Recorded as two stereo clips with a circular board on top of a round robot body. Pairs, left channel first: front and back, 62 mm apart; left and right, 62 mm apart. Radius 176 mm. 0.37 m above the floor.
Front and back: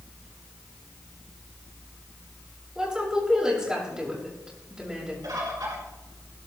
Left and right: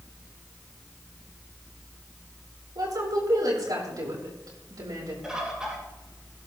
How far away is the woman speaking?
About 7 m.